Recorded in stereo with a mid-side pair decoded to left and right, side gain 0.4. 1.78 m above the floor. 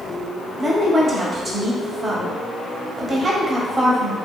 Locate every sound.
0.6 s a woman speaking: 35° right, 1.1 m